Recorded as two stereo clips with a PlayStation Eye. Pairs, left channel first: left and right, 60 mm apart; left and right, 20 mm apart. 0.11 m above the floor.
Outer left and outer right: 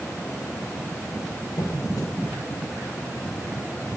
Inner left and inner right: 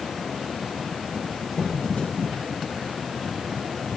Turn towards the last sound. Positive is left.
turn(degrees=80)